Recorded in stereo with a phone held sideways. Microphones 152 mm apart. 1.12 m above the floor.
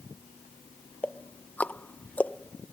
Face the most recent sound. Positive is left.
turn(degrees=10)  # may be behind; listen again after turning